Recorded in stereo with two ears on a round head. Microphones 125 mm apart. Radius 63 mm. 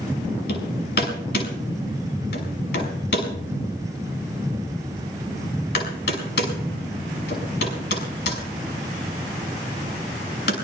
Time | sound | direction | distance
0.5 | hammering | 90° left | 6 m